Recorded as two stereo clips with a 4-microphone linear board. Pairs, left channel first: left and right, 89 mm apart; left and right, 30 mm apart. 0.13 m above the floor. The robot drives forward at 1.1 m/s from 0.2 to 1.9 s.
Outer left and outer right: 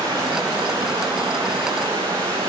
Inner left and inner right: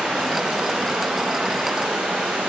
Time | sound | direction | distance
0.0 | running water | 60° right (ahead or behind) | 6 m